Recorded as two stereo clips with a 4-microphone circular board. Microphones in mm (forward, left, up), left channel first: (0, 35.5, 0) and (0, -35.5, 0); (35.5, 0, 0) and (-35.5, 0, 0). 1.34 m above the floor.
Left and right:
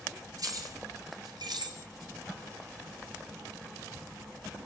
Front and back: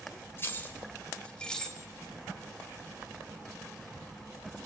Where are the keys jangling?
55° right, 3.5 m; by 1.8 s 85° right, 3.5 m.